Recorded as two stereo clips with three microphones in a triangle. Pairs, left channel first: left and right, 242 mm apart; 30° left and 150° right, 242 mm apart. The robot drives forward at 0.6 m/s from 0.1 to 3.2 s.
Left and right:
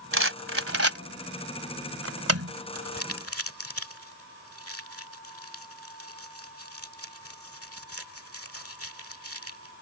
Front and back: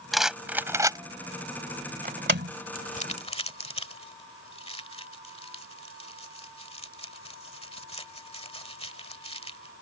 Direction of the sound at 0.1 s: 60° right.